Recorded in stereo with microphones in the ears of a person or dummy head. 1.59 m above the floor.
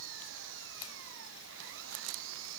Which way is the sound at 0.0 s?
70° right (ahead or behind).